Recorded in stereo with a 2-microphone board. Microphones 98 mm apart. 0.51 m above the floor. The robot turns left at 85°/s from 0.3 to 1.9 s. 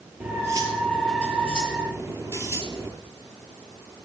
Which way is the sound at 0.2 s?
15° right.